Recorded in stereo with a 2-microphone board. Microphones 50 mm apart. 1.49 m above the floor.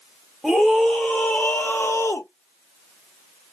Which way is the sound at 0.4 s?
Centre (ahead or behind).